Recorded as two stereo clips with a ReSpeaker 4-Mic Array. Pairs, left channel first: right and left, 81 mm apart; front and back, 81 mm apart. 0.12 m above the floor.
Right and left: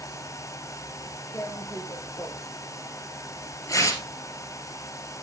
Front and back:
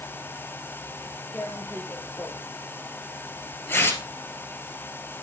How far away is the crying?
No crying in this recording.